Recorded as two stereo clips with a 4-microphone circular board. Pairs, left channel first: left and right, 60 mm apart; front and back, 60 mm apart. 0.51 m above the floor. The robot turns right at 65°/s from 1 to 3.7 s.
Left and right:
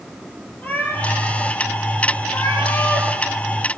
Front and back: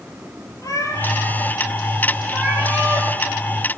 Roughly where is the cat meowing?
Ahead left.